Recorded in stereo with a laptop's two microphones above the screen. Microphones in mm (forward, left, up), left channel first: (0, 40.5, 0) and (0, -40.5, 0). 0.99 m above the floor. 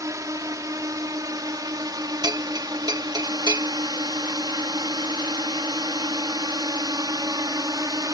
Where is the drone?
45° right (ahead or behind); by 8.1 s 50° right (ahead or behind).